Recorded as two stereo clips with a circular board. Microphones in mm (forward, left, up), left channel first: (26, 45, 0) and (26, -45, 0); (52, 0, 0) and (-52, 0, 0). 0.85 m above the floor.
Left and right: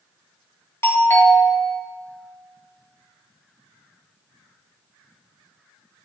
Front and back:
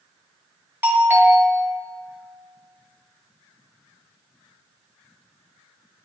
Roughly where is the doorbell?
Behind left.